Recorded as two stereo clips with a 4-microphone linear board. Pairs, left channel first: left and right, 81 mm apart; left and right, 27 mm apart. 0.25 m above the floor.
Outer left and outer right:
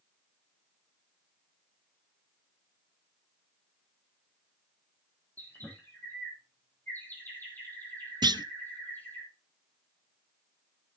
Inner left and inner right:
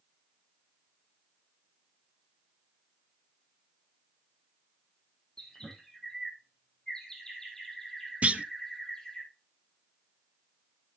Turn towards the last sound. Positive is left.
turn(degrees=-55)  # may be behind; listen again after turning